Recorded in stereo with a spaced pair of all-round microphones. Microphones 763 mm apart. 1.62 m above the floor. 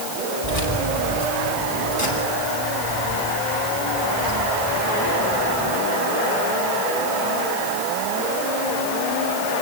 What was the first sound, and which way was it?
Keys jangling, 45° left (ahead or behind).